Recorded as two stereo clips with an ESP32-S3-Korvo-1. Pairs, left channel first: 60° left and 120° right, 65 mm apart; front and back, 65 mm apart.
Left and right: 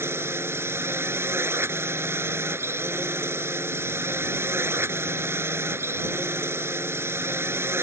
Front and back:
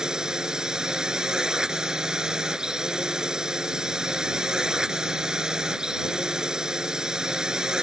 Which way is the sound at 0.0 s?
105° right.